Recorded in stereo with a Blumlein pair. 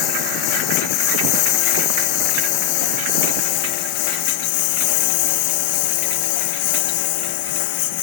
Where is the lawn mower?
40° left; by 8.0 s 50° left.